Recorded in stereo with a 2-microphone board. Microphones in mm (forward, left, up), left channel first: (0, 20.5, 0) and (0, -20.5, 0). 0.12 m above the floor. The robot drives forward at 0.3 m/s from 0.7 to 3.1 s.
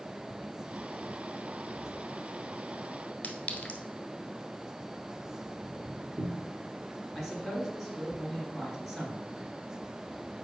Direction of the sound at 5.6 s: 85° right.